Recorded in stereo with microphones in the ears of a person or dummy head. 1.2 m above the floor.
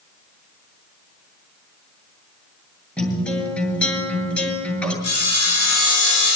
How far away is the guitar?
About 8 m.